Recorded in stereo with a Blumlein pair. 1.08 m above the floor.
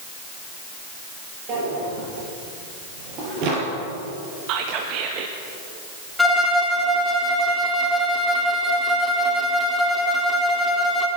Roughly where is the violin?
Ahead.